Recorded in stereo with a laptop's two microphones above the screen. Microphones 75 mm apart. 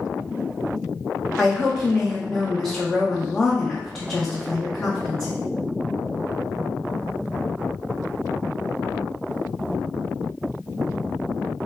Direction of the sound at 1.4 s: 10° left (ahead or behind).